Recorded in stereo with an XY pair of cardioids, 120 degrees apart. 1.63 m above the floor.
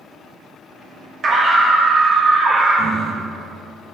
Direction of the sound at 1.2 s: 35° right.